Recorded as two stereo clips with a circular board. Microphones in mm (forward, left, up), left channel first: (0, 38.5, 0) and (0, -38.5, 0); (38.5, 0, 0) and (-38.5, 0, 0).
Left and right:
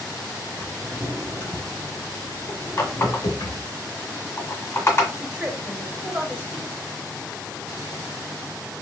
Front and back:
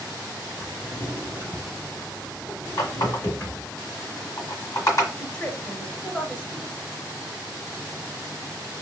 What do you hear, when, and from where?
0.6 s a drawer: 65° left, 1.4 m
2.8 s a running tap: 40° left, 1.6 m
5.2 s a woman speaking: 50° right, 0.9 m